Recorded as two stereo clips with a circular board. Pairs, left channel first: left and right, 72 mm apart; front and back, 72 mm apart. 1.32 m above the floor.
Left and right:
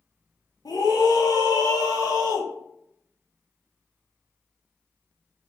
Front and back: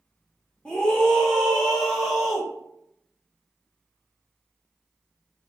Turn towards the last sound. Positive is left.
turn(degrees=85)